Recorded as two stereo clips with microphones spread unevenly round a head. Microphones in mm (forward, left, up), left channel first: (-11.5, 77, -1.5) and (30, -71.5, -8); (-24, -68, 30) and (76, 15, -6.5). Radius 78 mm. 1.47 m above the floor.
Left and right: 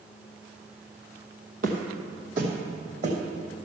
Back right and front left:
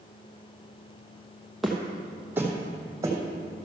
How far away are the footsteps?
About 2 m.